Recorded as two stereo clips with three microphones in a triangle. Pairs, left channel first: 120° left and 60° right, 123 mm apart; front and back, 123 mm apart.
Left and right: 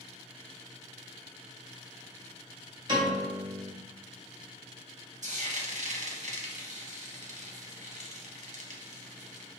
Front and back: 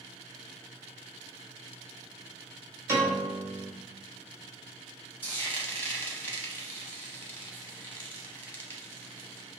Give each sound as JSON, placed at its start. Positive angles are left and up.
{"t": 2.9, "sound": "a piano", "azimuth_deg": -110, "distance_m": 1.6}
{"t": 5.2, "sound": "frying", "azimuth_deg": -75, "distance_m": 0.8}